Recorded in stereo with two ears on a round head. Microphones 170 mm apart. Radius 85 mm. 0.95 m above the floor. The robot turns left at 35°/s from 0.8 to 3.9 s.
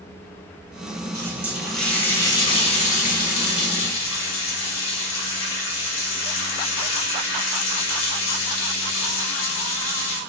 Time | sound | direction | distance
1.1 | a running tap | 160° right | 3.5 m